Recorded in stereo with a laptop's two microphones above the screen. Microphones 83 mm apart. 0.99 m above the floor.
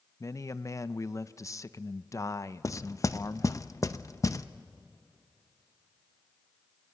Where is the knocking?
40° left (ahead or behind), 0.7 m.